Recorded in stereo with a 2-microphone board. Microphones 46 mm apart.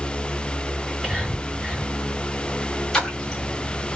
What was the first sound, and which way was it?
Whispering, 10° right (ahead or behind).